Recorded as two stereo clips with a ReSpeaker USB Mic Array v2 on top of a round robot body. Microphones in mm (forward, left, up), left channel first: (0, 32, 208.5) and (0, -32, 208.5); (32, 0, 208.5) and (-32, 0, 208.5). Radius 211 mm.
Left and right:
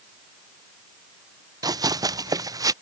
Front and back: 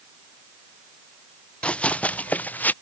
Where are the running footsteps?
75° right; by 2.7 s 65° right.